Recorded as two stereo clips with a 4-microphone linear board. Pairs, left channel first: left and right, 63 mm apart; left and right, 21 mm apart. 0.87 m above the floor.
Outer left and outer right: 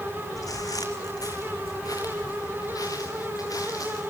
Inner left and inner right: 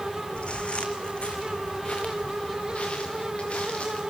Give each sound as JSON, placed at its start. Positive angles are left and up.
{"t": 0.4, "sound": "footsteps", "side_deg": 65, "distance_m": 2.0}